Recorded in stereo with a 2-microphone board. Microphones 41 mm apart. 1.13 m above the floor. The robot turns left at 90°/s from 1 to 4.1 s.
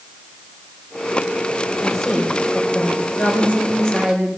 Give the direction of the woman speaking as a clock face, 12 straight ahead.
5 o'clock.